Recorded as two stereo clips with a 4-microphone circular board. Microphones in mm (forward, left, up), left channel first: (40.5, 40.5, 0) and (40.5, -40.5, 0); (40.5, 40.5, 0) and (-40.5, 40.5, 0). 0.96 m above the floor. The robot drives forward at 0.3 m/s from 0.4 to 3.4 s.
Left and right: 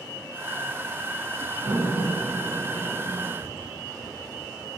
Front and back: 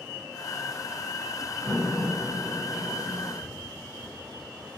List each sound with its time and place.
1.6 s a door slam: 80° right, 7.5 m; by 3.3 s 85° right, 7.5 m
3.4 s tapping: 75° right, 5 m